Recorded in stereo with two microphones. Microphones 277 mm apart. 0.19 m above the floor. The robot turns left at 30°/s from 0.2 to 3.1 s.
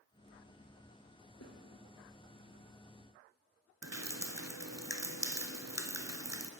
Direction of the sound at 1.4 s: 65° left (ahead or behind).